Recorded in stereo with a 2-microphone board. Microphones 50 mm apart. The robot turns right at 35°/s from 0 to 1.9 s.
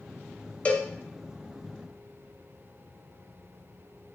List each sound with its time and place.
0.7 s a cowbell: 25° left (ahead or behind), 0.5 m; by 0.9 s 20° left (ahead or behind), 0.5 m